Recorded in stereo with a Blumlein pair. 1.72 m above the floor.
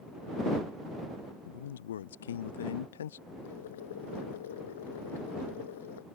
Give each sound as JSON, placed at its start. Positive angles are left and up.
{"t": 1.4, "sound": "a man speaking", "azimuth_deg": 65}
{"t": 3.4, "sound": "boiling", "azimuth_deg": 60}